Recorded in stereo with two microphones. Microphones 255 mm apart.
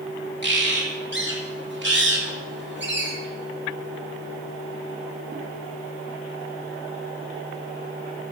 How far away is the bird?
About 1.9 m.